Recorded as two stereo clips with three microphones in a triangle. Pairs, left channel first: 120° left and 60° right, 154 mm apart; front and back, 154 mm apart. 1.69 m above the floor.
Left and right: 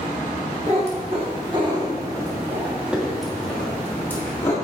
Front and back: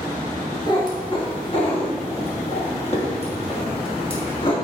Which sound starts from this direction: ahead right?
A cat meowing, at 0.7 s.